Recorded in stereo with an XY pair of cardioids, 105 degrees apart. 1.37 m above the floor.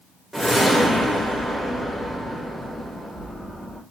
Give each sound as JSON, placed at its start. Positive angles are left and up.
{"t": 0.3, "sound": "a whoosh", "azimuth_deg": 0, "distance_m": 1.6}